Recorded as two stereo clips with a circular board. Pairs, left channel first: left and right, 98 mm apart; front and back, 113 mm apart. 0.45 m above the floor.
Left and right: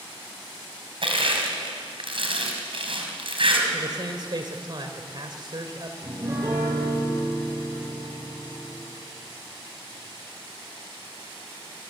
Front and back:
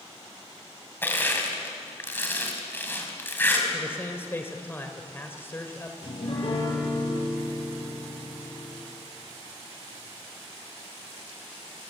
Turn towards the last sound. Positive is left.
turn(degrees=-30)